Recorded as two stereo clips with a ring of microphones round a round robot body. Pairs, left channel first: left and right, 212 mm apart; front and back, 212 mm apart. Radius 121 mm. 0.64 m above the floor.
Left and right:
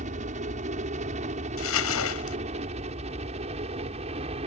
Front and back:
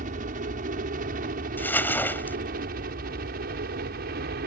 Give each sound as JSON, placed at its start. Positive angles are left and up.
{"t": 0.0, "sound": "a helicopter", "azimuth_deg": -140}
{"t": 1.6, "sound": "crumpling", "azimuth_deg": 80}